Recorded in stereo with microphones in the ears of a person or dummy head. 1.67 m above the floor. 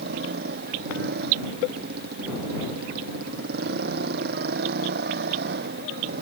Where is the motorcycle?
55° right (ahead or behind).